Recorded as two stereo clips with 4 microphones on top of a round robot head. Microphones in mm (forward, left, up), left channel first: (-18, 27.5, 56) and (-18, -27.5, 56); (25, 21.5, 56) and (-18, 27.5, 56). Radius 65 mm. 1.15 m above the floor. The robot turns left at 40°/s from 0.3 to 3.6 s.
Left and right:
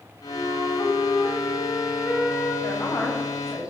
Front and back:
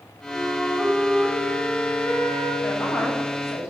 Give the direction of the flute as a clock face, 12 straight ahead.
8 o'clock.